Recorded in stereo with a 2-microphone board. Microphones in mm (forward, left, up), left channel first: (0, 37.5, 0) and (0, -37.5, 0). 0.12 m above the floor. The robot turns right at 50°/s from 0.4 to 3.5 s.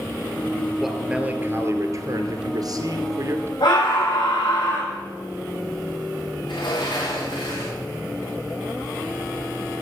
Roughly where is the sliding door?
Left.